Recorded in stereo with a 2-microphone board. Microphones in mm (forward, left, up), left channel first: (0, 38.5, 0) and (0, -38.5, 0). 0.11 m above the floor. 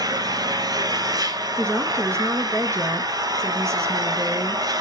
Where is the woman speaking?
40° right (ahead or behind), 1.5 m.